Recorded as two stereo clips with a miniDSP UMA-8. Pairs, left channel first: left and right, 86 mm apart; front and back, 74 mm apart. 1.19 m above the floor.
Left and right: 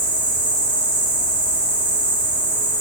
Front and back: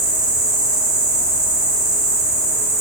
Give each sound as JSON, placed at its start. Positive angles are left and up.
{"t": 0.0, "sound": "an insect", "azimuth_deg": 155, "distance_m": 0.7}